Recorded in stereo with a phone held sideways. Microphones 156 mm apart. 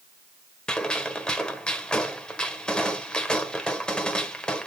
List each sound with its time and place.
0.7 s a gunshot: 5° left (ahead or behind), 1.5 m